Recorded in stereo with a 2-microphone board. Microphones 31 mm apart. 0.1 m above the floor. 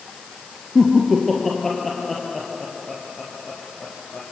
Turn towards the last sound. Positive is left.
turn(degrees=15)  # may be behind; listen again after turning